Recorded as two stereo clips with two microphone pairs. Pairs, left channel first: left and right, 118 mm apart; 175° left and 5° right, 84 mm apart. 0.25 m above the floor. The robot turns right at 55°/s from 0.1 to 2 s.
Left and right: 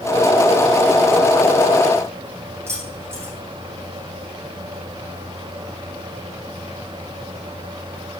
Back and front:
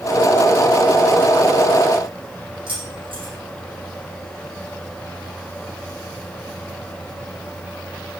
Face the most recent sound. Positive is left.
turn(degrees=-20)